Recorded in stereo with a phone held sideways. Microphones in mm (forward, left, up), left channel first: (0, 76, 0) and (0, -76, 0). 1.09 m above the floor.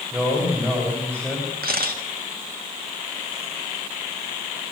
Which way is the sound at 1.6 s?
85° right.